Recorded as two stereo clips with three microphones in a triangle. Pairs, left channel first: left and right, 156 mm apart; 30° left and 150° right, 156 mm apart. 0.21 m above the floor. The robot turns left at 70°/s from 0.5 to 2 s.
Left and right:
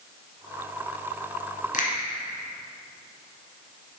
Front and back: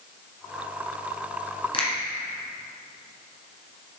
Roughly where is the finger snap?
Left.